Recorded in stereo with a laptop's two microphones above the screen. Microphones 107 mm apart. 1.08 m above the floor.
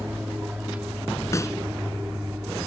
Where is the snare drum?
25° left (ahead or behind).